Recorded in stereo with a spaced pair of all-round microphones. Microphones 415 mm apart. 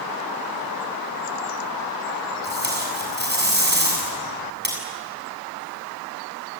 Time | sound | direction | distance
2.4 | tape being pulled | 25° right (ahead or behind) | 7.5 m